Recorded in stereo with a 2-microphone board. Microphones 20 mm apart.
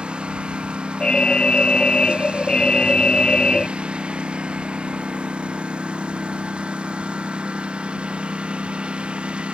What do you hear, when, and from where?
0.0 s a lawn mower: 80° right; by 9.5 s 90° right
1.0 s an alarm: 60° left (ahead or behind)